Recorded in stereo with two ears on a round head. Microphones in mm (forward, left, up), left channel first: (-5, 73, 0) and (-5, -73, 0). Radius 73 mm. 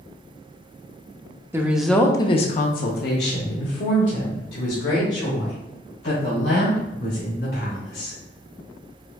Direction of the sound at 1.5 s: 15° right (ahead or behind).